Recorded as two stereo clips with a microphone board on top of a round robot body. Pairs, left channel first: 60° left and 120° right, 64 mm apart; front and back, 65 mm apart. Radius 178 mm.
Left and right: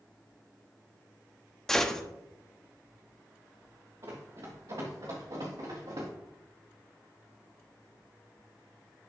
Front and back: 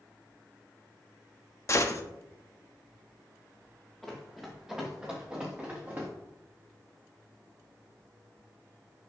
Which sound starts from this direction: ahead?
A gunshot, at 1.7 s.